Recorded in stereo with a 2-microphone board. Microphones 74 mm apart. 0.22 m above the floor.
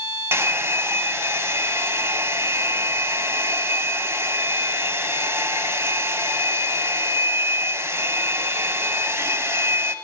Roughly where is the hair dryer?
Right.